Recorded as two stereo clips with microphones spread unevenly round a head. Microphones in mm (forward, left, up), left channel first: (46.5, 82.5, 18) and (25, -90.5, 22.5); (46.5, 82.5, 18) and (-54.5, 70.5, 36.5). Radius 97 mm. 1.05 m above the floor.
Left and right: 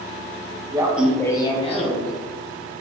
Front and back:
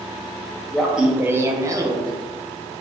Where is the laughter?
50° right, 0.6 m; by 2.1 s 125° left, 1.0 m.